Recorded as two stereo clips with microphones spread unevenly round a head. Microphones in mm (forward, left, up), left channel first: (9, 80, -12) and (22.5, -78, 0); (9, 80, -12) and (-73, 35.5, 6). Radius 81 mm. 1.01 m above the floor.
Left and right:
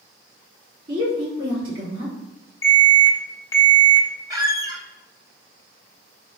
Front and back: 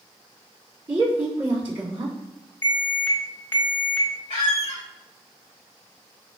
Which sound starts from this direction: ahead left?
An alarm, at 2.6 s.